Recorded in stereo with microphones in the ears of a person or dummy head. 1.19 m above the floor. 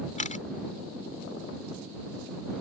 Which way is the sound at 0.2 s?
40° left (ahead or behind).